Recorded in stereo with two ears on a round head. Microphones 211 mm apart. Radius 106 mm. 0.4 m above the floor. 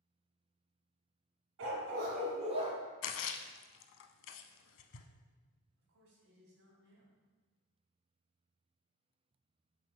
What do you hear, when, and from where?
1.6 s a dog barking: 65° right (ahead or behind), 1.7 m; by 2.7 s 20° right (ahead or behind), 2 m
3.0 s a splash: 55° left (ahead or behind), 0.6 m
5.8 s a man speaking: 60° right (ahead or behind), 3 m